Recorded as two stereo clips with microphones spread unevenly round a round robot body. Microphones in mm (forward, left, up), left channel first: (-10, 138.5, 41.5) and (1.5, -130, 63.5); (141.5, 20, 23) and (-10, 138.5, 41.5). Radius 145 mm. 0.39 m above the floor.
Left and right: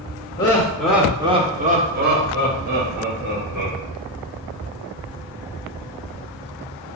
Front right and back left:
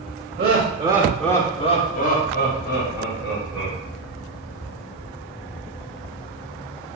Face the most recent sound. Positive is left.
turn(degrees=-35)